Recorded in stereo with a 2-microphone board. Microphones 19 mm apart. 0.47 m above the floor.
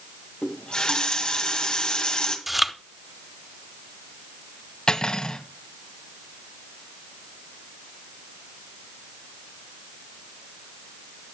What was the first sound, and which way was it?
A running tap, 55° left (ahead or behind).